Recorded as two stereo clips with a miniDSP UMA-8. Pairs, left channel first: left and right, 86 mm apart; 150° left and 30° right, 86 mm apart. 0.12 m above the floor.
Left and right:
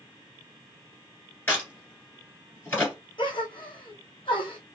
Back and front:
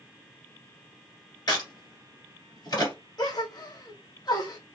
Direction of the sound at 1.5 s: 145° left.